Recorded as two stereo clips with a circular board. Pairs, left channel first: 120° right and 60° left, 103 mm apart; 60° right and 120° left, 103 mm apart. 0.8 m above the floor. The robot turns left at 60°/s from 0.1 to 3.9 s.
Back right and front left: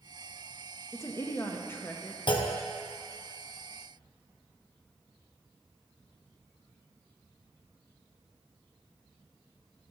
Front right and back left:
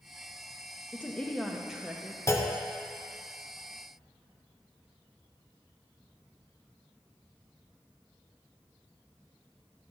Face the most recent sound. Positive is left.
turn(degrees=150)